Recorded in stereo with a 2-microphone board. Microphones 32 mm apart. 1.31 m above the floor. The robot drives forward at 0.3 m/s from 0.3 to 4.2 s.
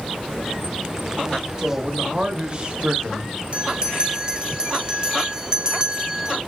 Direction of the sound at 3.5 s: 35° right (ahead or behind).